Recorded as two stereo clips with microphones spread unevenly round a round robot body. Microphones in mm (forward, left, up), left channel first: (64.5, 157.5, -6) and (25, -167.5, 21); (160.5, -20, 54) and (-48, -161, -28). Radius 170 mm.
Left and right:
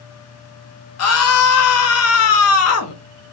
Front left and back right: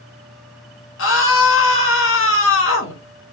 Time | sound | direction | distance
1.0 | a scream | 85° left | 0.7 m